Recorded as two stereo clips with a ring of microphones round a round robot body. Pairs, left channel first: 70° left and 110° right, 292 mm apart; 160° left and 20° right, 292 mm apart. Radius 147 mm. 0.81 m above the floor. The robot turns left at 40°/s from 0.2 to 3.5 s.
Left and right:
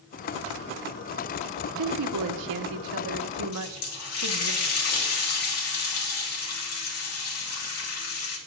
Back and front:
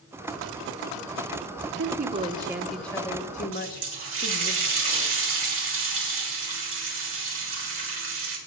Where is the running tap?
25° left, 3 m.